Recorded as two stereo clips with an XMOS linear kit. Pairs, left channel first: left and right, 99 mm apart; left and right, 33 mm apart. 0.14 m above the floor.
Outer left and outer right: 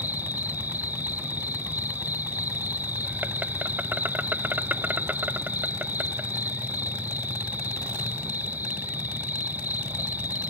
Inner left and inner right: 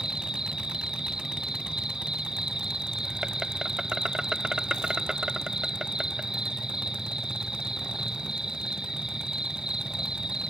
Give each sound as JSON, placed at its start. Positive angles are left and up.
{"t": 0.0, "sound": "an insect", "side_deg": -20}